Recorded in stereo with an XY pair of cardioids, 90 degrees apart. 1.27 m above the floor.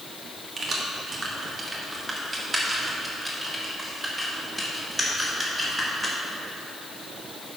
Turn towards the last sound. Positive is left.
turn(degrees=5)